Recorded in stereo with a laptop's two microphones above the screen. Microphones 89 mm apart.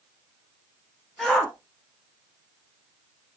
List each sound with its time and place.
1.2 s a shout: 5° left (ahead or behind), 0.7 m